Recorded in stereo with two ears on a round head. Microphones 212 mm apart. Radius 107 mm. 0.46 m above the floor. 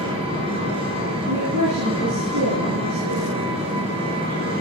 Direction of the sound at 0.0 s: 25° right (ahead or behind).